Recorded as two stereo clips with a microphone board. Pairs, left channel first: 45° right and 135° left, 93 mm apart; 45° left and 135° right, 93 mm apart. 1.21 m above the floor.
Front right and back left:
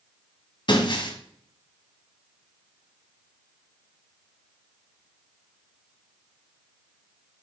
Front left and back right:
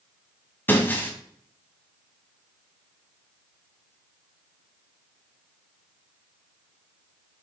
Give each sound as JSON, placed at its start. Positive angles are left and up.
{"t": 0.7, "sound": "breaking glass", "azimuth_deg": -20, "distance_m": 2.0}